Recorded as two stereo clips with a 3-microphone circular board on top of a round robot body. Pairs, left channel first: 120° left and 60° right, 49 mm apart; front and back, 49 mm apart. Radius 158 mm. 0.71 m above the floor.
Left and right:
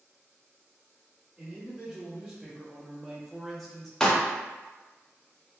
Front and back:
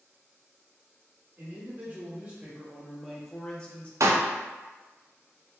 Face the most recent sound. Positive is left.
turn(degrees=-160)